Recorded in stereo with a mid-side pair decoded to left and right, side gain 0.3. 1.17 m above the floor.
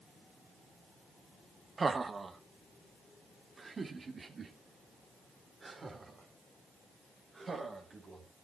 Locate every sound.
1.8 s laughter: 40° right, 1.2 m; by 8.3 s 45° right, 4.5 m